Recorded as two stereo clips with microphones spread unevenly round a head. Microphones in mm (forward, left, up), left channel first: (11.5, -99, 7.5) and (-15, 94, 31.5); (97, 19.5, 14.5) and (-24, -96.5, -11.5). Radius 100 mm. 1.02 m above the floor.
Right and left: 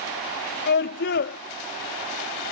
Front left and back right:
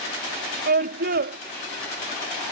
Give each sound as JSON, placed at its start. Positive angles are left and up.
{"t": 0.7, "sound": "a scream", "azimuth_deg": -115}